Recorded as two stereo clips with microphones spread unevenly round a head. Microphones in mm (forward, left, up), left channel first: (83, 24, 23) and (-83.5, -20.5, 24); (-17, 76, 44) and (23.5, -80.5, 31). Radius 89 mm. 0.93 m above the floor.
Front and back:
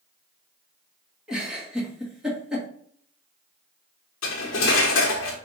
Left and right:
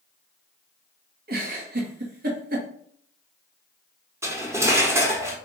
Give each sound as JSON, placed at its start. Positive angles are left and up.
{"t": 1.3, "sound": "a giggle", "azimuth_deg": -80, "distance_m": 1.5}
{"t": 4.2, "sound": "cutlery clinking", "azimuth_deg": 0, "distance_m": 1.0}